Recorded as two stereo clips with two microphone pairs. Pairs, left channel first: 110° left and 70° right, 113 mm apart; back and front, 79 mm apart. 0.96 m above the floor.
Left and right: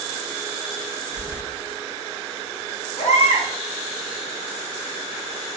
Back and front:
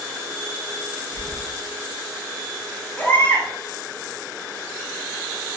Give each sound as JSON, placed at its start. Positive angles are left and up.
{"t": 1.1, "sound": "keys jangling", "azimuth_deg": 20, "distance_m": 1.1}
{"t": 3.0, "sound": "a baby crying", "azimuth_deg": 115, "distance_m": 1.0}